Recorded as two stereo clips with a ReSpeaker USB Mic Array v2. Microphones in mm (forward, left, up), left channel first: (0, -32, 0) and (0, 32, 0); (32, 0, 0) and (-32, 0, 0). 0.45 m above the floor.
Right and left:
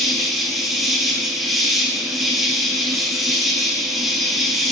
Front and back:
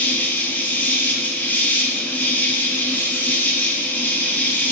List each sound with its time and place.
0.0 s an insect: 5° left, 0.8 m